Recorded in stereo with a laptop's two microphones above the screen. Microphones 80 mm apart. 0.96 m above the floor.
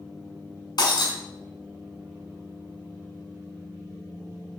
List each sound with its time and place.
0.8 s breaking glass: 65° left (ahead or behind), 1.6 m